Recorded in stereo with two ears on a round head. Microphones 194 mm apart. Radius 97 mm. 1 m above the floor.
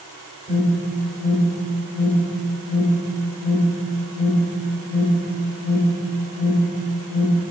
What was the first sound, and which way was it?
An alarm, 5° left (ahead or behind).